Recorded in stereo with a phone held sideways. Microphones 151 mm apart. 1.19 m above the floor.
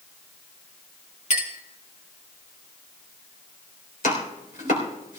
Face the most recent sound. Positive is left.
turn(degrees=85)